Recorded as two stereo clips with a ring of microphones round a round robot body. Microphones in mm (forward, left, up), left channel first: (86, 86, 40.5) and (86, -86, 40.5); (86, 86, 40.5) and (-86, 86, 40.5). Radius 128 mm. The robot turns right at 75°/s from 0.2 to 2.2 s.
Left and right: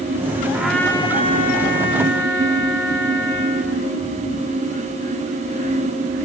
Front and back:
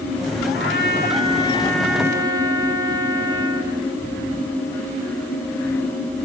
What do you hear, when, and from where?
0.5 s a trumpet: 10° right, 3 m; by 3.8 s 115° left, 3 m